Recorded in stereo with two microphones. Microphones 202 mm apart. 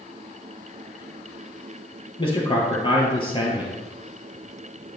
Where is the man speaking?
25° left (ahead or behind), 3 m.